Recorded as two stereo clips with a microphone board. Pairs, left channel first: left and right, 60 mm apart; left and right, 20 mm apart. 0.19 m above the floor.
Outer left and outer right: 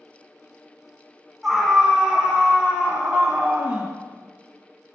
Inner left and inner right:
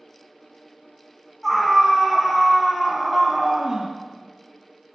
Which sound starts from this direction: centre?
A scream, at 1.4 s.